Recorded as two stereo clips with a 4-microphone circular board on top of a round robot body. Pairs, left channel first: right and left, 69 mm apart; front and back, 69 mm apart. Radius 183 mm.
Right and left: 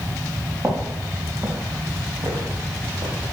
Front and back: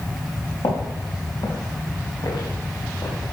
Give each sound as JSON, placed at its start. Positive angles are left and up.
{"t": 0.6, "sound": "footsteps", "azimuth_deg": 20, "distance_m": 3.0}